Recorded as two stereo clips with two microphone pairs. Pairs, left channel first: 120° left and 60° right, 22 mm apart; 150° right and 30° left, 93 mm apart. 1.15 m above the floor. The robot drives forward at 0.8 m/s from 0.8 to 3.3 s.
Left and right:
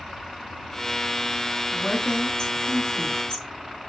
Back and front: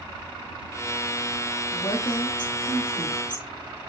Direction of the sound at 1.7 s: 170° left.